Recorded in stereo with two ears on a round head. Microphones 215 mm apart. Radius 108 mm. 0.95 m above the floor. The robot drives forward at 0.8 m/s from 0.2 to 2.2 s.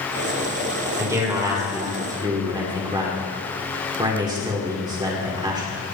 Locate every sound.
1.0 s a man speaking: 15° right (ahead or behind), 3.5 m; by 5.8 s 20° right (ahead or behind), 3 m